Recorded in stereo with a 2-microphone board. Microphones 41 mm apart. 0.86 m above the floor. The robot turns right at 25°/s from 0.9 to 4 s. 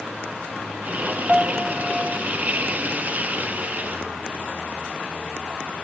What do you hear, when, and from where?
1.3 s a piano: 20° right (ahead or behind); by 2.3 s 5° left (ahead or behind)